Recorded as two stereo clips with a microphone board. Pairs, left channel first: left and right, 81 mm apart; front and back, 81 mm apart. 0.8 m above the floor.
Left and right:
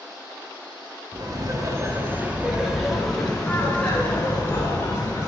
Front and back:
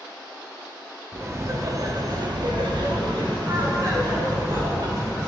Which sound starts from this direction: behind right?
Laughter, at 1.1 s.